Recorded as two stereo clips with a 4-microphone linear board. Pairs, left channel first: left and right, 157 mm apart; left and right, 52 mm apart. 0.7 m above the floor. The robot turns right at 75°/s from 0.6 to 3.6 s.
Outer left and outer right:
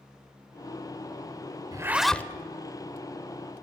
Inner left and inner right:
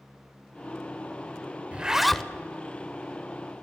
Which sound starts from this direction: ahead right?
A zipper, at 1.7 s.